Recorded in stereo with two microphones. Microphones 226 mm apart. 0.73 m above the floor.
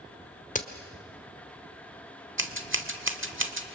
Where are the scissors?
60° right (ahead or behind), 1.5 m.